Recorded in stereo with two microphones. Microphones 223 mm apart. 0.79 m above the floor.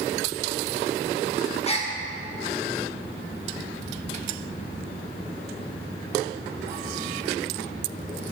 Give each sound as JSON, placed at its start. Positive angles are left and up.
{"t": 1.6, "sound": "a gasp", "side_deg": 30, "distance_m": 0.8}